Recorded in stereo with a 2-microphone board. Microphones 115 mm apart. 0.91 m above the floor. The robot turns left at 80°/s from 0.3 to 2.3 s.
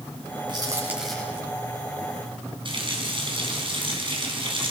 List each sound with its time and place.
0.5 s a crack: 45° right (ahead or behind), 8.5 m; by 1.4 s 25° left (ahead or behind), 8.5 m
2.6 s a running tap: 50° right (ahead or behind), 5 m